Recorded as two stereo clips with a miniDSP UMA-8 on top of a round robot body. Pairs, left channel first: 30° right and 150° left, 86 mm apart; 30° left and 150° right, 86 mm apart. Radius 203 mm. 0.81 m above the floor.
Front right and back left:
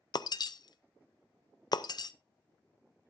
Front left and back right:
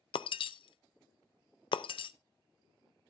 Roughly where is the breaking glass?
Ahead.